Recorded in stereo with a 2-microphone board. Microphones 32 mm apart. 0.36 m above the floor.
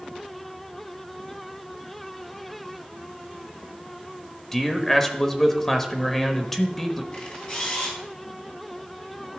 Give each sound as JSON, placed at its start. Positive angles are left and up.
{"t": 4.5, "sound": "a man speaking", "side_deg": 10, "distance_m": 1.0}
{"t": 7.1, "sound": "a camera shutter", "side_deg": 40, "distance_m": 3.0}